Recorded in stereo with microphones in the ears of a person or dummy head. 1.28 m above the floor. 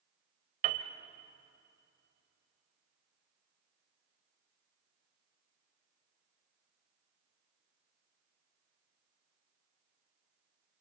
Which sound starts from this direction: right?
A piano, at 0.6 s.